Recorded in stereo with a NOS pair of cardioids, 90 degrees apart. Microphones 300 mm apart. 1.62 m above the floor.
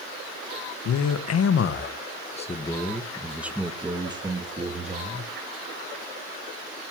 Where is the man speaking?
65° left, 1.8 m; by 5.3 s 25° right, 3.5 m.